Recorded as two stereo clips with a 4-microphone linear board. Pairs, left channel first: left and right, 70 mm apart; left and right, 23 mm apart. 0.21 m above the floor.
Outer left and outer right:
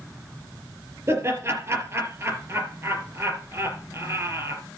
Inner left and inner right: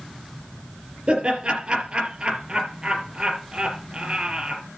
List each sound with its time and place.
1.1 s laughter: 40° right (ahead or behind), 4 m